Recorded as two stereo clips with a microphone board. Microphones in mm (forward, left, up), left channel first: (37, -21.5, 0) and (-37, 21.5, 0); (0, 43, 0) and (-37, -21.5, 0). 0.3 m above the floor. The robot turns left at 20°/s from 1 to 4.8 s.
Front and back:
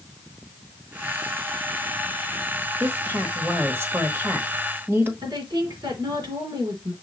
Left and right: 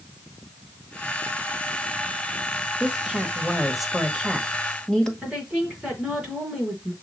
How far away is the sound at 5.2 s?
About 3.5 m.